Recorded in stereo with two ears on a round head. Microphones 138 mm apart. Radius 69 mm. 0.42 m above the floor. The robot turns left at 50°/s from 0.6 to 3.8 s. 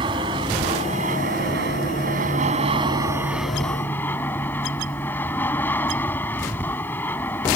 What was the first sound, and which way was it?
An aircraft, 35° right.